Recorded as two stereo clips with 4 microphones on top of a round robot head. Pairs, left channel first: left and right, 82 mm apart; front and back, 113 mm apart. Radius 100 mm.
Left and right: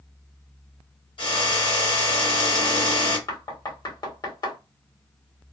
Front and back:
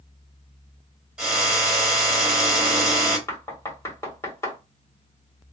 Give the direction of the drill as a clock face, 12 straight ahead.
9 o'clock.